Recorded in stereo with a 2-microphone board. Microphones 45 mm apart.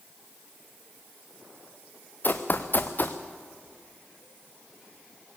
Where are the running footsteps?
45° left (ahead or behind), 1.3 m.